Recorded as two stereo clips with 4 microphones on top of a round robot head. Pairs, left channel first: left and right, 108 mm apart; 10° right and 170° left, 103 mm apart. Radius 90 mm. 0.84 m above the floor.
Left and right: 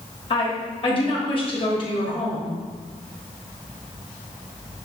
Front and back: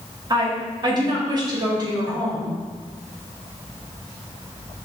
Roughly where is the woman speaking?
Behind left.